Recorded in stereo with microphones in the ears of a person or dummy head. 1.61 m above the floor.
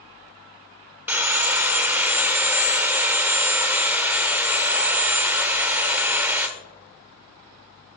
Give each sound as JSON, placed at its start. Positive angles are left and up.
{"t": 1.1, "sound": "sawing", "side_deg": -5, "distance_m": 0.7}